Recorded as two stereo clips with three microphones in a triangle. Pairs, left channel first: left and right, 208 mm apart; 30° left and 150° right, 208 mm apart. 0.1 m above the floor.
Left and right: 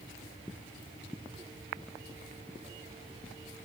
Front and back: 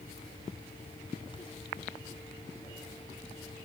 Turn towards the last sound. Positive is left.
No sound to turn to.